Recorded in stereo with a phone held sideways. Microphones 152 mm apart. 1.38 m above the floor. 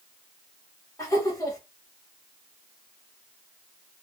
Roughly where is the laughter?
Left.